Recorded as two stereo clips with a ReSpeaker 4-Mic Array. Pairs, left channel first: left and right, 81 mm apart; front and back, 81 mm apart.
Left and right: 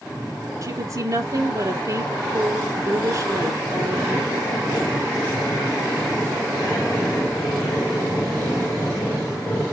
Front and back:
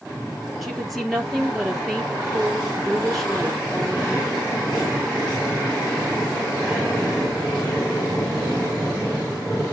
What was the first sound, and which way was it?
A woman speaking, 85° right.